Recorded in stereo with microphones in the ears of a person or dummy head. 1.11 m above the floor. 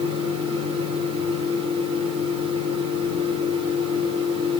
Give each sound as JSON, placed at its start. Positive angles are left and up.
{"t": 0.0, "sound": "a fan", "side_deg": -30, "distance_m": 3.0}